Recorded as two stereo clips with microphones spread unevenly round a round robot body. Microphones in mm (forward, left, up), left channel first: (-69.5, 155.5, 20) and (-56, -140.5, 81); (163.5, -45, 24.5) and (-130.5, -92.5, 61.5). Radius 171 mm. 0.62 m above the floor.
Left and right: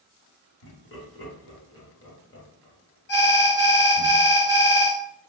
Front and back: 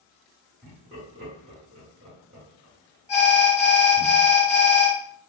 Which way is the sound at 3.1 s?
65° left.